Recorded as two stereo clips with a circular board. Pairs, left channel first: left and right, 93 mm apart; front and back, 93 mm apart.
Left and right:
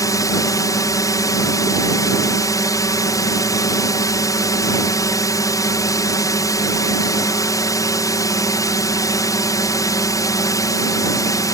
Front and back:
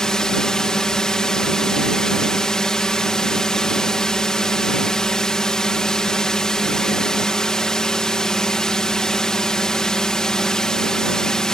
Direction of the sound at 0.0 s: 80° left.